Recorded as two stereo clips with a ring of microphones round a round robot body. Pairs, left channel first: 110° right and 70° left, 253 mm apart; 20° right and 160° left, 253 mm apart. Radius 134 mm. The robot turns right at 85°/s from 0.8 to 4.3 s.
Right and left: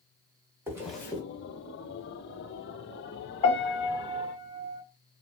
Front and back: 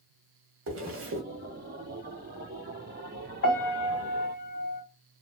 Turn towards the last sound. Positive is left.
turn(degrees=25)